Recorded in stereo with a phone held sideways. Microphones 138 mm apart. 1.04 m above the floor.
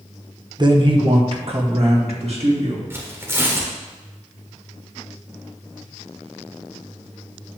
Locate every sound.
0.6 s a man speaking: 35° right (ahead or behind), 0.9 m; by 2.8 s 55° right (ahead or behind), 2.5 m
2.9 s tearing paper: 20° right (ahead or behind), 1.3 m